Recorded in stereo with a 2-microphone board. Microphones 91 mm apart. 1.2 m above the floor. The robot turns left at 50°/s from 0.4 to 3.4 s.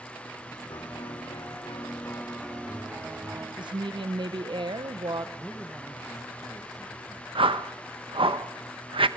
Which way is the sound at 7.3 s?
85° right.